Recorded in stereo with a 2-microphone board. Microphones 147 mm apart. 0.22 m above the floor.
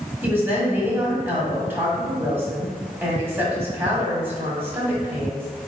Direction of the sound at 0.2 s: 15° right (ahead or behind).